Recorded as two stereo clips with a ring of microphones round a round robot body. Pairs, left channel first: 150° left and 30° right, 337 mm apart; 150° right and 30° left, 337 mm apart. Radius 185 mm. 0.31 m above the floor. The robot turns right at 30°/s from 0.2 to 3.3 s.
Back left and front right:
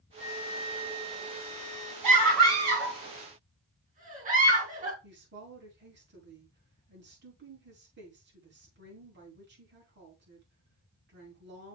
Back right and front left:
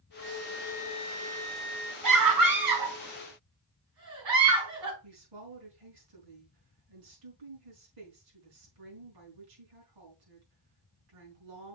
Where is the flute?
95° right, 3.5 m; by 1.9 s 40° right, 3.5 m.